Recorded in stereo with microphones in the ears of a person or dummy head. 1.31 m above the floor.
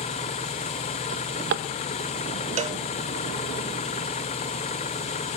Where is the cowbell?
35° right (ahead or behind), 0.5 m.